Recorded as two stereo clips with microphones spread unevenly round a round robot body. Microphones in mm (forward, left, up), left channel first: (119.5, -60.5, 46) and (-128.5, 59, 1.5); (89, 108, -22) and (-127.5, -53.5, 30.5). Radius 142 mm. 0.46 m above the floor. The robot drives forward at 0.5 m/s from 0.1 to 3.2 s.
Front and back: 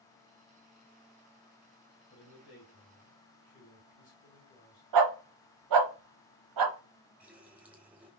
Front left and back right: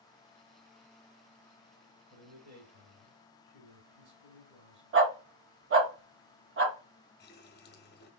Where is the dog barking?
165° left, 0.8 m.